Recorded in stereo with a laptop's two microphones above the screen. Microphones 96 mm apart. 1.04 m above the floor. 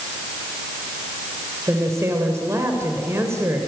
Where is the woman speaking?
30° right (ahead or behind), 3.5 m.